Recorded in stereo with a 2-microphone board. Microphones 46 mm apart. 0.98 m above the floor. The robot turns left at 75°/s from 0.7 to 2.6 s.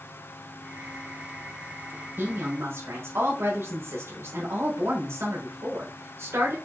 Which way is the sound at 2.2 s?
50° right.